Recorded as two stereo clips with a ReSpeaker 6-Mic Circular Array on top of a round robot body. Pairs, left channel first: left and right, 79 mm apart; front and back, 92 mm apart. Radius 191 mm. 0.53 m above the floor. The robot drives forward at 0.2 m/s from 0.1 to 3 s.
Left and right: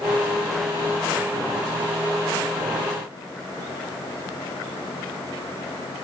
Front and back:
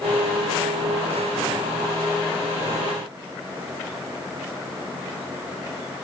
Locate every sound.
Only background noise.